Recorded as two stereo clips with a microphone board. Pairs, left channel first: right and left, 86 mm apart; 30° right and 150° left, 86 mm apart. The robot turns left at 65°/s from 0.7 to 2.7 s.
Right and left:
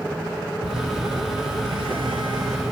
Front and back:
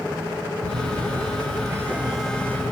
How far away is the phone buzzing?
About 0.8 m.